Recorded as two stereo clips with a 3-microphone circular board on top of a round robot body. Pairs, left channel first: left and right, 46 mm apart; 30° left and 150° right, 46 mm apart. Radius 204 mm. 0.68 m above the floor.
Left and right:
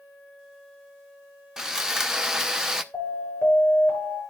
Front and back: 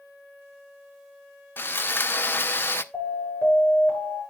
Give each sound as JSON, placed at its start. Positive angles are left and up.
{"t": 1.6, "sound": "sawing", "azimuth_deg": -10, "distance_m": 0.7}
{"t": 2.9, "sound": "an alarm", "azimuth_deg": 70, "distance_m": 8.5}